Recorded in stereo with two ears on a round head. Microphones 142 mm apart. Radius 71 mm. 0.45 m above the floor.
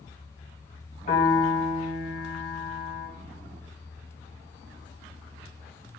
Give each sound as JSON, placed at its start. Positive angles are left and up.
{"t": 1.1, "sound": "a piano", "side_deg": 55, "distance_m": 2.5}